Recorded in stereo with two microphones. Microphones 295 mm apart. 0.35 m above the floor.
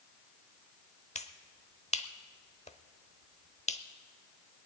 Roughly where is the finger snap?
Left.